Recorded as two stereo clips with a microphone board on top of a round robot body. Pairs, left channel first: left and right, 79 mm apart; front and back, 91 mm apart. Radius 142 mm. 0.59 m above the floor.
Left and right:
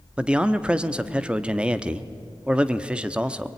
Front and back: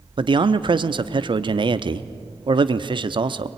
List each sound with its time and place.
0.2 s a man speaking: 165° right, 1.0 m